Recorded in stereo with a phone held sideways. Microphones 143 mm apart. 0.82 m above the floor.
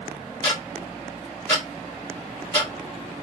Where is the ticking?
15° left (ahead or behind), 1.6 m.